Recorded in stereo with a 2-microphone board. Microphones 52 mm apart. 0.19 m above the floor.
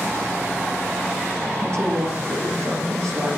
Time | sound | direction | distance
1.6 | a woman speaking | 65° right (ahead or behind) | 3.5 m